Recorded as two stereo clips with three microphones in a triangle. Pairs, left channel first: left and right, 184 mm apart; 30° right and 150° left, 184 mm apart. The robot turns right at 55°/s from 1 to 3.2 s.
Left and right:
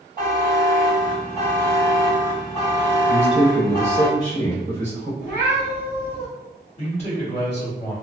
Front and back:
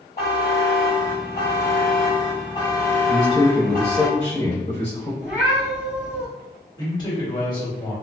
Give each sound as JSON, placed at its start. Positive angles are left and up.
{"t": 0.2, "sound": "a buzzer", "azimuth_deg": -55, "distance_m": 1.7}
{"t": 3.1, "sound": "a man speaking", "azimuth_deg": -80, "distance_m": 1.0}
{"t": 5.2, "sound": "a cat meowing", "azimuth_deg": 70, "distance_m": 1.5}
{"t": 6.8, "sound": "a man speaking", "azimuth_deg": 35, "distance_m": 1.8}